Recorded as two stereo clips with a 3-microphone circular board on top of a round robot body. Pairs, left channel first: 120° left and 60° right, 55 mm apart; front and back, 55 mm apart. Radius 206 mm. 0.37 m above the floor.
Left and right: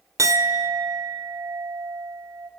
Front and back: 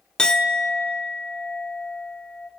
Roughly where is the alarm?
I don't hear an alarm.